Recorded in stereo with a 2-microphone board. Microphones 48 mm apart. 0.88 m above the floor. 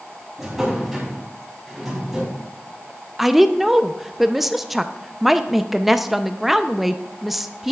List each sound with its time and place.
0.4 s a drawer: 5° right (ahead or behind), 3 m
3.2 s a woman speaking: 5° right (ahead or behind), 0.5 m